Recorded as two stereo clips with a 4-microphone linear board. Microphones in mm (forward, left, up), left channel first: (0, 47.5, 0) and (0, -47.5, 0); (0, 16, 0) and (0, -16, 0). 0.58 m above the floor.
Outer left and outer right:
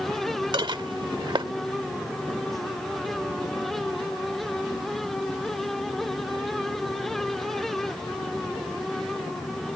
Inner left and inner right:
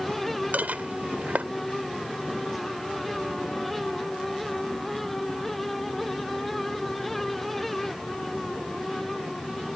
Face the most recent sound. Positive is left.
turn(degrees=-60)  # may be behind; listen again after turning